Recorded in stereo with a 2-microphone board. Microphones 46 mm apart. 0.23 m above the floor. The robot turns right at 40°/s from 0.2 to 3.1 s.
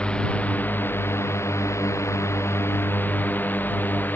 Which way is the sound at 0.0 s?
25° left (ahead or behind).